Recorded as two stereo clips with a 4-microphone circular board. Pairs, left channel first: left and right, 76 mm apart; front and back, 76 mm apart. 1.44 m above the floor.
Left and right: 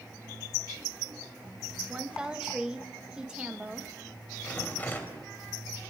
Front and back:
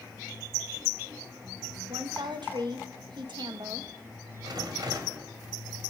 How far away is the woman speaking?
About 2 m.